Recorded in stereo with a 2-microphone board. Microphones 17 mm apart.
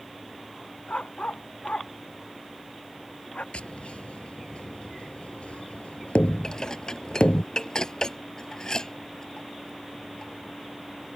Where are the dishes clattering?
40° left (ahead or behind).